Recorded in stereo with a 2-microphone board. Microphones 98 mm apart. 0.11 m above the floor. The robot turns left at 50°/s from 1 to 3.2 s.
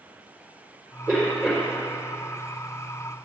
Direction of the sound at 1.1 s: 150° right.